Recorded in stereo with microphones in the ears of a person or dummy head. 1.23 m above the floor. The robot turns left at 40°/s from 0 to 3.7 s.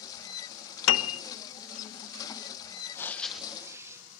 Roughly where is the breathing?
Ahead.